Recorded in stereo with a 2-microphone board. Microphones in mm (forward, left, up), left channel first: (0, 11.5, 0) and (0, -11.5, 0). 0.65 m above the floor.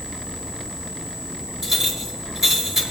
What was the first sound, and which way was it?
A clink, 20° right (ahead or behind).